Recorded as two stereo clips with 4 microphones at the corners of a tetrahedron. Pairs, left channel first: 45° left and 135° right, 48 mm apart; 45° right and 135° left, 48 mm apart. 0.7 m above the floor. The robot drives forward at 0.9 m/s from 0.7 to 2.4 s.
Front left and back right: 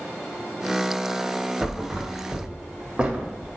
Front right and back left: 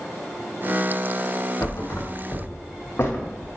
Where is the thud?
45° right, 1.9 m; by 3.5 s 65° right, 1.5 m.